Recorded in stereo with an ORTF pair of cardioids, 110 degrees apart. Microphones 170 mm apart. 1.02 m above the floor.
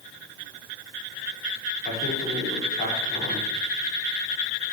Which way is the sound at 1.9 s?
60° left.